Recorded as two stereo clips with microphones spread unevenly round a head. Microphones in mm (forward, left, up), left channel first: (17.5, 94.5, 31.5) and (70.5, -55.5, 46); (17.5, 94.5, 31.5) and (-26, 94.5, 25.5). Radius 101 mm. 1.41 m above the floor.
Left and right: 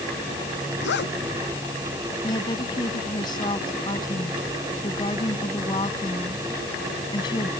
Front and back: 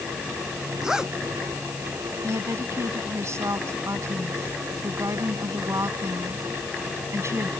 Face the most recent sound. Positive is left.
turn(degrees=180)